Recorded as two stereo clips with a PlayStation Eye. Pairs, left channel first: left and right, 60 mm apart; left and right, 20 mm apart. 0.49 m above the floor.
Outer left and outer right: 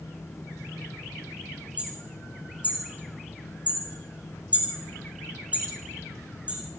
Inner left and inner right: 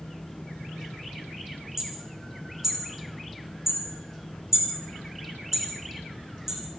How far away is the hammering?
About 9 m.